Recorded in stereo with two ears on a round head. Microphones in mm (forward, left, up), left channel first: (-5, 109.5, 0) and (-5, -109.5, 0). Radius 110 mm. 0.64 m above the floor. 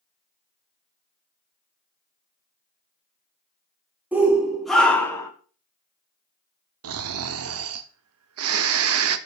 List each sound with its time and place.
4.1 s a shout: 5° right (ahead or behind), 1.7 m; by 5.3 s 15° left (ahead or behind), 1.2 m
6.8 s snoring: 60° right (ahead or behind), 0.6 m